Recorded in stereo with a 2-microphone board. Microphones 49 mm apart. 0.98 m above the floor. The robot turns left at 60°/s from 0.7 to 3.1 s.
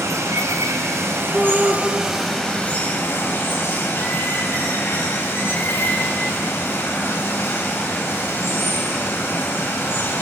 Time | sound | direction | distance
0.0 | running water | 90° right | 4.5 m
1.3 | a shout | 10° left (ahead or behind) | 3 m